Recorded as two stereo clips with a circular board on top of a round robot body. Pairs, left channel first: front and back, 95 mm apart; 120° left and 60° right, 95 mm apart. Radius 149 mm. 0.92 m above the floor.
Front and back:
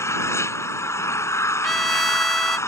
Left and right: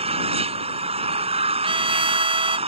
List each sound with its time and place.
0.0 s an engine running: 60° right
1.6 s a trumpet: 90° right